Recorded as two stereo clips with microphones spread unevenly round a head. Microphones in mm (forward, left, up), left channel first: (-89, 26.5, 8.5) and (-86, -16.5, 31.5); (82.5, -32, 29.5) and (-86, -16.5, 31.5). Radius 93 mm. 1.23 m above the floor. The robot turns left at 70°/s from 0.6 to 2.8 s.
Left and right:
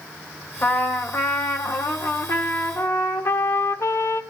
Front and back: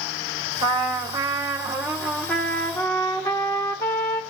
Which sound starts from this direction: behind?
A trumpet, at 0.6 s.